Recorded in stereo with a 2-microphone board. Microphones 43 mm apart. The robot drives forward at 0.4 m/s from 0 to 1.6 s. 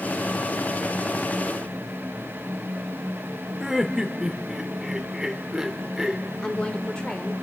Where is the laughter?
15° right (ahead or behind), 0.8 m.